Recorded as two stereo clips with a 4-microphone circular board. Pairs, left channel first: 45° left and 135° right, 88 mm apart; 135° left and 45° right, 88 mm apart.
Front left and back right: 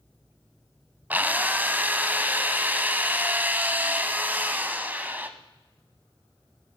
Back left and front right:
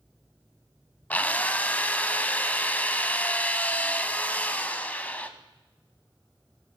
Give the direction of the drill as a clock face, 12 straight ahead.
6 o'clock.